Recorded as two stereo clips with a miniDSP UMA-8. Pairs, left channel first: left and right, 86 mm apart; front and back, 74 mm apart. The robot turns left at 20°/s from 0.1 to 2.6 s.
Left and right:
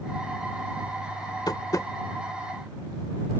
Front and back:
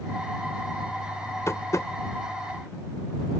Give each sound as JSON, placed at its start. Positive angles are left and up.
{"t": 1.5, "sound": "tapping", "azimuth_deg": 50}